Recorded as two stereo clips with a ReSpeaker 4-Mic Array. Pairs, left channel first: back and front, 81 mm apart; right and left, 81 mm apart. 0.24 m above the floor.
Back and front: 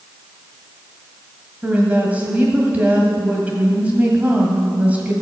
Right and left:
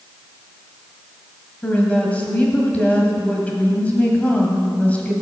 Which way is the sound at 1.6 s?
45° right.